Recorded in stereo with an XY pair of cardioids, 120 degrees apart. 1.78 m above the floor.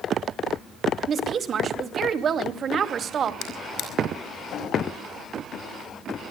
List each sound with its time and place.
1.1 s a woman speaking: 45° right, 2.5 m
3.4 s a drawer: 65° left, 5 m